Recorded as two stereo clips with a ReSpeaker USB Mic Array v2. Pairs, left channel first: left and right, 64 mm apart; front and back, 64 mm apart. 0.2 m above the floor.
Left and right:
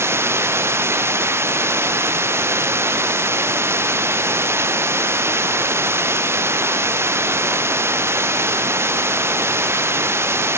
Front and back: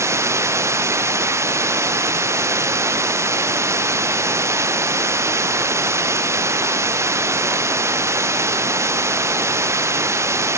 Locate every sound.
0.0 s running water: 140° right